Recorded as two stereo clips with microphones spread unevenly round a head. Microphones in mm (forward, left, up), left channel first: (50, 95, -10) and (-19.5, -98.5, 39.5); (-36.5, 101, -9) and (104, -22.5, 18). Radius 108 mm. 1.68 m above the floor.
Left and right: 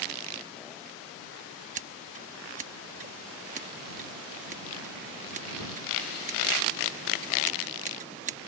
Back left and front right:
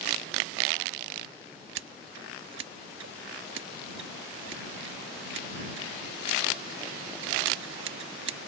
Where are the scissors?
60° right.